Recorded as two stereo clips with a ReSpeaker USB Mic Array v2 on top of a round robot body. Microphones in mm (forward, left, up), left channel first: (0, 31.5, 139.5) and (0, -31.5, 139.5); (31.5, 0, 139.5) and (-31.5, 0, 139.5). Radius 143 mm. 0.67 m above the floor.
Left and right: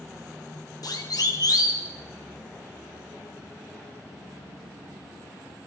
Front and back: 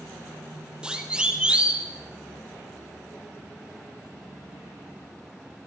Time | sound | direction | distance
0.8 | a siren | 105° left | 3.5 m